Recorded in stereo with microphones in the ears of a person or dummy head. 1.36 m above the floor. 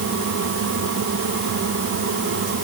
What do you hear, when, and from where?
Only background noise.